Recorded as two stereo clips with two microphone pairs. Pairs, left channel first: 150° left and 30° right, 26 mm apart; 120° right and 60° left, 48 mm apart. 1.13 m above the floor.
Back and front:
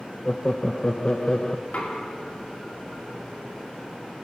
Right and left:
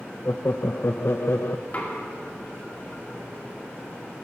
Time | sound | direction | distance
0.2 | laughter | 150° right | 0.7 m
1.7 | knocking | straight behind | 2.5 m